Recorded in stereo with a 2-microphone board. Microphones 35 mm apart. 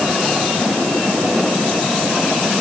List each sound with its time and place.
Only background noise.